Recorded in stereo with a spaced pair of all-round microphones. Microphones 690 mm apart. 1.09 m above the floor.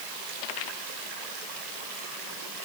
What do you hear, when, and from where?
Only background noise.